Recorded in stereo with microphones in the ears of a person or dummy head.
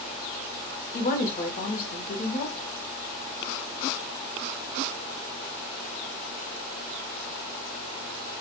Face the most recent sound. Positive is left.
turn(degrees=50)  # may be behind; listen again after turning